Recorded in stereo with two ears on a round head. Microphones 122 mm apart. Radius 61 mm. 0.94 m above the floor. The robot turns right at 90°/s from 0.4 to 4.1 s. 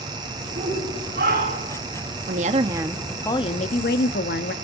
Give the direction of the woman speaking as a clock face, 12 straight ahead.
2 o'clock.